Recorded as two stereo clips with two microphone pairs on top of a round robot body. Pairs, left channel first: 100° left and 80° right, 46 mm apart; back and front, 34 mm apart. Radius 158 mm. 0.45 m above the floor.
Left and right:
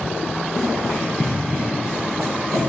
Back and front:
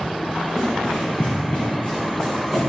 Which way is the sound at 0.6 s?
115° left.